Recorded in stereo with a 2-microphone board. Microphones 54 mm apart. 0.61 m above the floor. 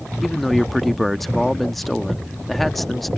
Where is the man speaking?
Centre (ahead or behind).